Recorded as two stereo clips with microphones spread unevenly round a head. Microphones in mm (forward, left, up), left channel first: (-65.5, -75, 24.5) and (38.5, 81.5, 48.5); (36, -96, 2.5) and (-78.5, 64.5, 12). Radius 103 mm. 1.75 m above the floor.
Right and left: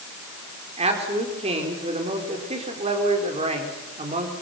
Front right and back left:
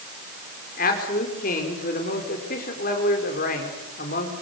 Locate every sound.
0.8 s a man speaking: 5° right, 4.5 m